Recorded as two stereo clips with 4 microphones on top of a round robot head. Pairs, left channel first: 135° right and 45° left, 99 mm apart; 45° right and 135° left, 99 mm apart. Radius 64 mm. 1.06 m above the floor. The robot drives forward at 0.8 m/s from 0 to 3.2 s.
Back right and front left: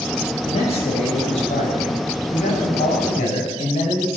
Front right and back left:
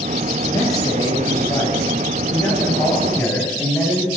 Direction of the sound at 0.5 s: 105° right.